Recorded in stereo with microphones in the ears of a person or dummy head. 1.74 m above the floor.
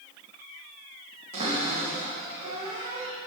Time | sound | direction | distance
1.3 | a cupboard door | 35° right (ahead or behind) | 3 m